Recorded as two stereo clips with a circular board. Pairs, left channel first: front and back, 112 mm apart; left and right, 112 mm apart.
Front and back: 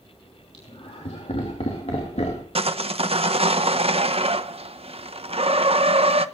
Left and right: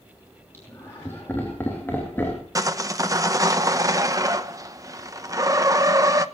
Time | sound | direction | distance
0.5 | laughter | 20° left | 3 m
2.5 | sawing | 150° right | 0.9 m